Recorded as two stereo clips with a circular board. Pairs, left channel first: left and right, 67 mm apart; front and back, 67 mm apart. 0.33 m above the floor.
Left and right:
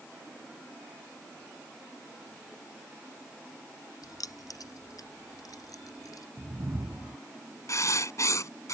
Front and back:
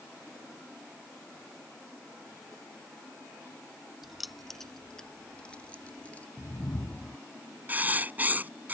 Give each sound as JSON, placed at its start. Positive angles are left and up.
{"t": 4.0, "sound": "keys jangling", "azimuth_deg": 95}
{"t": 6.4, "sound": "a whoosh", "azimuth_deg": -55}
{"t": 7.7, "sound": "writing", "azimuth_deg": 120}